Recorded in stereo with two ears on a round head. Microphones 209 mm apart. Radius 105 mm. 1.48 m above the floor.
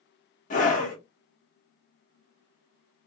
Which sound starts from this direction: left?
A scream, at 0.5 s.